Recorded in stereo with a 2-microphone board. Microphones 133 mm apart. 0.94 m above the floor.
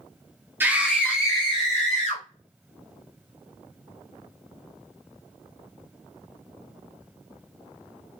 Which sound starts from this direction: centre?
A scream, at 0.6 s.